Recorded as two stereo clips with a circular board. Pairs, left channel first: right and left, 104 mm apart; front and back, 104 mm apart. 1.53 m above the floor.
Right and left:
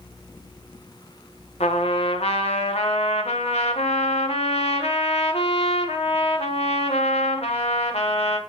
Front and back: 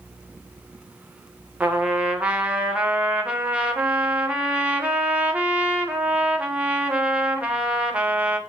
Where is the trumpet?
100° right, 1.4 m.